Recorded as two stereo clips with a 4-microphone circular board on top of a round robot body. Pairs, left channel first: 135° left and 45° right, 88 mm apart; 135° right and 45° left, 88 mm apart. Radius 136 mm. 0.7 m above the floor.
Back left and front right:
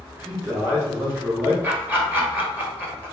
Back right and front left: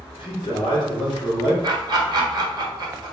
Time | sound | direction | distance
0.2 | a man speaking | 110° right | 1.9 m
1.6 | laughter | 20° left | 1.4 m